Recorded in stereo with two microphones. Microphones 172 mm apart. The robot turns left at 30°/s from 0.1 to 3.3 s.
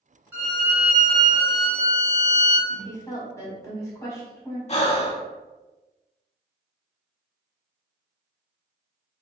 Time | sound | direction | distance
0.3 | a violin | 160° right | 1.7 m
2.7 | a woman speaking | 30° left (ahead or behind) | 1.3 m
4.7 | breathing | 40° left (ahead or behind) | 0.5 m